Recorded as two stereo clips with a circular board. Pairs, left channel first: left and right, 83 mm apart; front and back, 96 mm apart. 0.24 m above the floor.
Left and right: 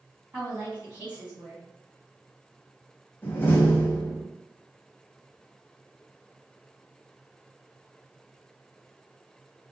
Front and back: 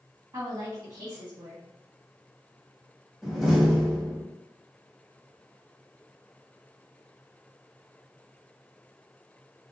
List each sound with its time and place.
0.3 s a woman speaking: 150° right, 1.9 m
3.2 s a door slam: 90° left, 0.6 m